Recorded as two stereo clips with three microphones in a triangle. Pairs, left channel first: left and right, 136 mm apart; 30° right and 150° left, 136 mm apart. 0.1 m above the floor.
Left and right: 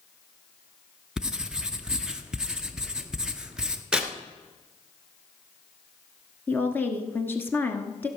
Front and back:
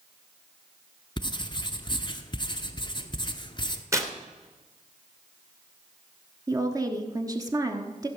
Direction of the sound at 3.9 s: 165° right.